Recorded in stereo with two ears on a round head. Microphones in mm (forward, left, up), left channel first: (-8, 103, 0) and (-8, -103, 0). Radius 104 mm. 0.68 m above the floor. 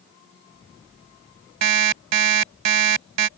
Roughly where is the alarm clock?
Right.